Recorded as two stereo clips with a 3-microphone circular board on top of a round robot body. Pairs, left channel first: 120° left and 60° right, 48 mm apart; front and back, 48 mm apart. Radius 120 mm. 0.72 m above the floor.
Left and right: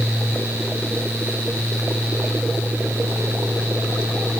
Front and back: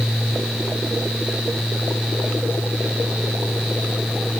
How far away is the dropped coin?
No dropped coin in this recording.